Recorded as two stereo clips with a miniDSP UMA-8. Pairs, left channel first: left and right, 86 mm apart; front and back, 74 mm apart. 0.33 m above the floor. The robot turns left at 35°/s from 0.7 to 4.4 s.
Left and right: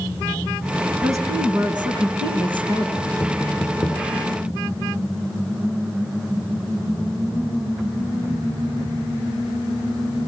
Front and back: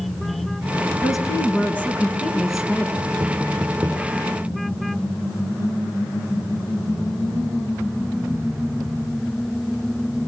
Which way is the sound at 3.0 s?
175° left.